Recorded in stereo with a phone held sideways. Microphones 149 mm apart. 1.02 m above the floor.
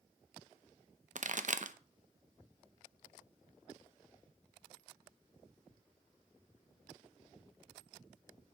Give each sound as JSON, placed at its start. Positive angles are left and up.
{"t": 1.1, "sound": "a pop", "side_deg": -60, "distance_m": 0.7}